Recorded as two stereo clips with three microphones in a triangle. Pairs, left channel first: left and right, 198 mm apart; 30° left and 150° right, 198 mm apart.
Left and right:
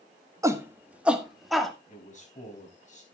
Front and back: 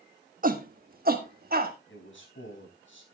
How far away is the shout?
About 1.3 m.